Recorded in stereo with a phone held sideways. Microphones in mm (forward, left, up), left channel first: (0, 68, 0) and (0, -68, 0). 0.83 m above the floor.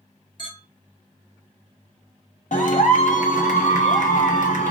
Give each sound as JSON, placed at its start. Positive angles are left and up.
{"t": 0.4, "sound": "a clink", "side_deg": 40, "distance_m": 1.3}
{"t": 2.5, "sound": "a clap", "side_deg": 70, "distance_m": 0.7}